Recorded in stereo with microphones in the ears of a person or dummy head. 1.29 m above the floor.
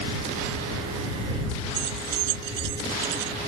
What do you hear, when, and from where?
1.7 s keys jangling: 65° right (ahead or behind)